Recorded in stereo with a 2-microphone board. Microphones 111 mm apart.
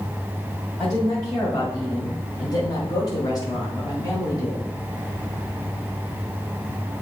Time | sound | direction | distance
0.8 | a woman speaking | 25° left (ahead or behind) | 1.8 m